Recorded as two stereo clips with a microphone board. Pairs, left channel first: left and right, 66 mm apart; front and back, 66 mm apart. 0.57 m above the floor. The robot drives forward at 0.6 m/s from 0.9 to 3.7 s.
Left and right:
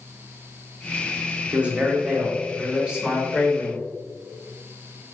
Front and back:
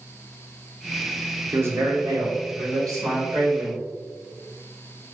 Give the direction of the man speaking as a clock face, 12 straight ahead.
5 o'clock.